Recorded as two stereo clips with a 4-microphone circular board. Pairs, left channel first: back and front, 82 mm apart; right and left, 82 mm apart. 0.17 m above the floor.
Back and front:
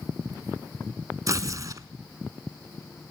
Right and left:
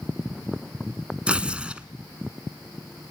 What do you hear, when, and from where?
1.3 s tearing paper: 20° left, 0.8 m